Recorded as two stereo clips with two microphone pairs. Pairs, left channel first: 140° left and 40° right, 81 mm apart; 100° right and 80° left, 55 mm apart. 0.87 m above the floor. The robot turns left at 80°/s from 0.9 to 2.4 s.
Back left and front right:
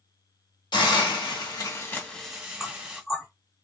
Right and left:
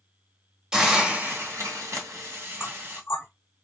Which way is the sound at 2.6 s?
130° right.